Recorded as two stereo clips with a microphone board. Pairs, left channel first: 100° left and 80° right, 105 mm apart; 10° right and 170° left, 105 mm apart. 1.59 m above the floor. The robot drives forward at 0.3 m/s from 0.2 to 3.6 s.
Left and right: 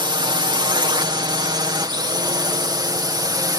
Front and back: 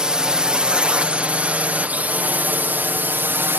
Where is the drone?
110° right; by 3.6 s 125° right.